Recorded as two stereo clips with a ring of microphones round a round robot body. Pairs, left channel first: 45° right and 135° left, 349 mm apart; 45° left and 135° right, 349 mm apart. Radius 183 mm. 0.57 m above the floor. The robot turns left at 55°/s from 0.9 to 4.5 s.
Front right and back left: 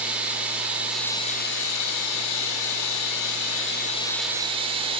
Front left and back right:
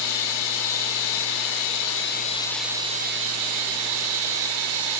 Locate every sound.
0.0 s running water: 50° left, 2.5 m; by 5.0 s 150° right, 2.5 m